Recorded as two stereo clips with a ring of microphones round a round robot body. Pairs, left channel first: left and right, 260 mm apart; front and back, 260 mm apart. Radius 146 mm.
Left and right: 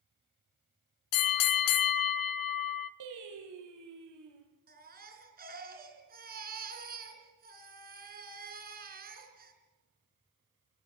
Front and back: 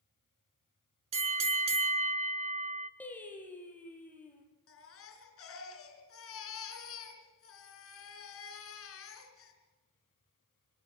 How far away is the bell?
About 0.8 m.